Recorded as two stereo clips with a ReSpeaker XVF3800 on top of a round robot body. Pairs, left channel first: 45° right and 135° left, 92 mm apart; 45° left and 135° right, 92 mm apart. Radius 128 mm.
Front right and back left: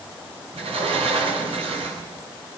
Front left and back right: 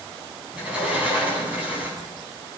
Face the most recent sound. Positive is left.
turn(degrees=145)